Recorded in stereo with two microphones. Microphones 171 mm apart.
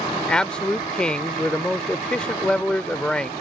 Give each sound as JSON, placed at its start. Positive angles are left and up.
{"t": 0.3, "sound": "a man speaking", "side_deg": 5}